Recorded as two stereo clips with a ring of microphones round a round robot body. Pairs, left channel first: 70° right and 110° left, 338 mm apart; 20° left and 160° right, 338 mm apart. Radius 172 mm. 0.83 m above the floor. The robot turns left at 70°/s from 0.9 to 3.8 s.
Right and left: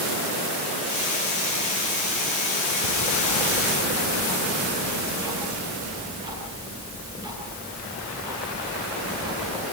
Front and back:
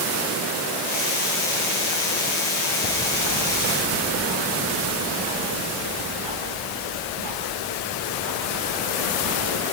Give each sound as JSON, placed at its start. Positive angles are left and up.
{"t": 2.8, "sound": "ticking", "azimuth_deg": -100, "distance_m": 9.5}